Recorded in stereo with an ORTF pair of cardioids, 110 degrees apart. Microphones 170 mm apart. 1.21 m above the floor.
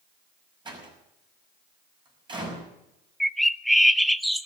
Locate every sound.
0.7 s a door slam: 25° right, 5.5 m
3.2 s a bird: straight ahead, 0.6 m